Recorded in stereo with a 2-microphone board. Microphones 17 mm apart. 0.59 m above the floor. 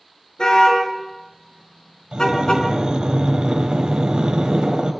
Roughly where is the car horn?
Left.